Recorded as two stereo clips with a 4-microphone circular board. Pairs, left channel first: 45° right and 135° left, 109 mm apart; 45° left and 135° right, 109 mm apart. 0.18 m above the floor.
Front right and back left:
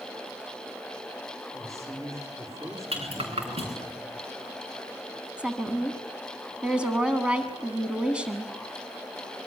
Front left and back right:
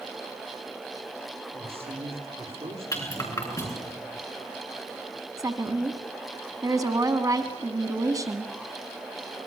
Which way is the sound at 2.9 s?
105° left.